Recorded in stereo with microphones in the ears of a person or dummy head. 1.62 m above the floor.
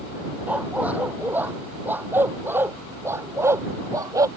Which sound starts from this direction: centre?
A dog barking, at 0.5 s.